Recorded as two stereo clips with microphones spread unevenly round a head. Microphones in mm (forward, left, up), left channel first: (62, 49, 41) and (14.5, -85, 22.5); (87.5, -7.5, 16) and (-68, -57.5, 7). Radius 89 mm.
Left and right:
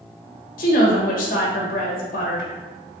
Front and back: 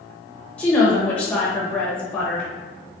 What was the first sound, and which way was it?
A woman speaking, 100° left.